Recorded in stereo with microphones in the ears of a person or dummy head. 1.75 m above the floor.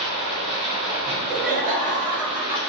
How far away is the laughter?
About 1.6 m.